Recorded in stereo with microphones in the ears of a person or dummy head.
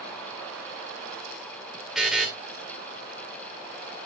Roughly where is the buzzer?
Centre.